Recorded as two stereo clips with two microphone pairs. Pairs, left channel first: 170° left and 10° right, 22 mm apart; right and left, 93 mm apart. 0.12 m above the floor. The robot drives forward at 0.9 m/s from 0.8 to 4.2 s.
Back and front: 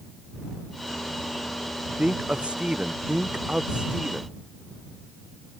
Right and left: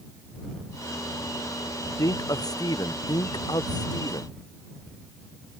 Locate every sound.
2.0 s a man speaking: 40° right; by 4.3 s 50° right